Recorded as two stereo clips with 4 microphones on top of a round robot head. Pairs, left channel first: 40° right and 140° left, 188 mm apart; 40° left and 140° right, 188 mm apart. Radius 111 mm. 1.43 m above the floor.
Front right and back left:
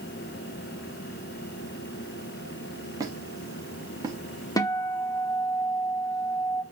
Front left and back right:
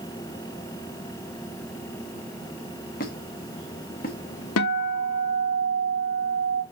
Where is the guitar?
35° left, 1.1 m.